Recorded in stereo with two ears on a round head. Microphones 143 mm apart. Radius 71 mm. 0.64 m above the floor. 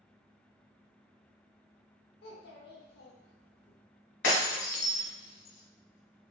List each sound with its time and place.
2.2 s a child speaking: 70° left (ahead or behind), 0.8 m
4.2 s breaking glass: 90° left, 1.3 m